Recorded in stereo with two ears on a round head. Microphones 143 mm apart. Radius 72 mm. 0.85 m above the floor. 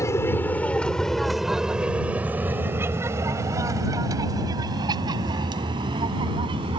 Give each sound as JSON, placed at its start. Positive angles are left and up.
{"t": 0.0, "sound": "an aircraft", "side_deg": 20}